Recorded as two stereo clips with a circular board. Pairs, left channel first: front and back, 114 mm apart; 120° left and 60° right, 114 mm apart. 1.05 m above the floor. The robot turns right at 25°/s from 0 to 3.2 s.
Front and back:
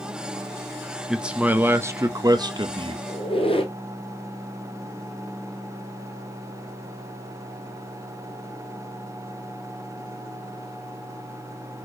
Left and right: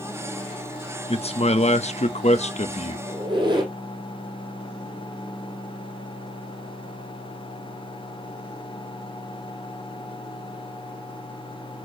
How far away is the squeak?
About 1.9 m.